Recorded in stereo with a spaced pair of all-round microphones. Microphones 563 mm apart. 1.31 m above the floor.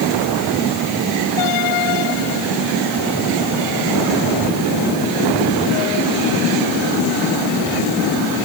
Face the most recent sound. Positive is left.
No sound to turn to.